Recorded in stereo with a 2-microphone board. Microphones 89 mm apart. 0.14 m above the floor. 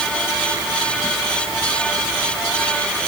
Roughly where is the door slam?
No door slam in this recording.